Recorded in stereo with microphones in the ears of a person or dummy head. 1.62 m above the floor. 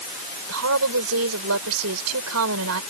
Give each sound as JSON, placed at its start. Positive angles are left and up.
{"t": 0.5, "sound": "a woman speaking", "side_deg": -80}